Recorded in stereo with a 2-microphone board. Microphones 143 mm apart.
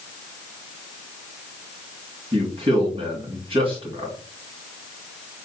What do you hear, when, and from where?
2.3 s a man speaking: 35° right (ahead or behind), 2.5 m